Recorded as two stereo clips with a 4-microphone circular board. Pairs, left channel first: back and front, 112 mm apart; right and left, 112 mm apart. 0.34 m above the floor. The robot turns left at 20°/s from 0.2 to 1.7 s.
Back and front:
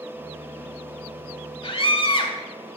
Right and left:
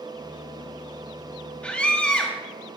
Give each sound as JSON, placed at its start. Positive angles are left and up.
{"t": 1.6, "sound": "a scream", "azimuth_deg": -165, "distance_m": 2.0}